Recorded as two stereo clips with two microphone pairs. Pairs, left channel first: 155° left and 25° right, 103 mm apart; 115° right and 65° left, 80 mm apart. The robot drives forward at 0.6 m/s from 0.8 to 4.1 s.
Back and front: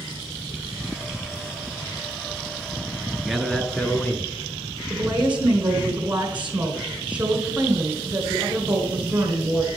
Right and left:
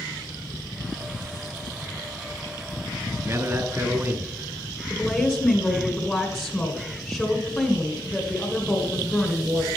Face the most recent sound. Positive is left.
turn(degrees=-80)